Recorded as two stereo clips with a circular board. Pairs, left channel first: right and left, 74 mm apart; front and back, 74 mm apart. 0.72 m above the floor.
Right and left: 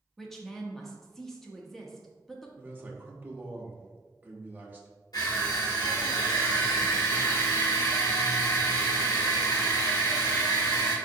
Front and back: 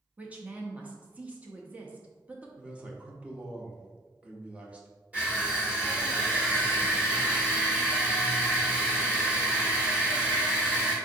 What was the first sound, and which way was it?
A woman speaking, 170° right.